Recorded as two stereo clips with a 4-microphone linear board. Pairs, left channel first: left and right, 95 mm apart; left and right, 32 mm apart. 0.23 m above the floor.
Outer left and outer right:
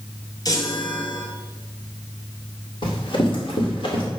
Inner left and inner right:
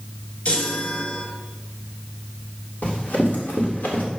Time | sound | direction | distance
0.5 | a chime | 40° left (ahead or behind) | 2 m
2.8 | running footsteps | 55° left (ahead or behind) | 4 m